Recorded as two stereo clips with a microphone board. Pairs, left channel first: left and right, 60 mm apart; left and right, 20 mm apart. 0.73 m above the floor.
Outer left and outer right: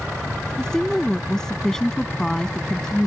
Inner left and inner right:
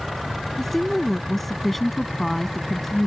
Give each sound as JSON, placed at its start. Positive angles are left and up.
{"t": 0.6, "sound": "a woman speaking", "side_deg": 10}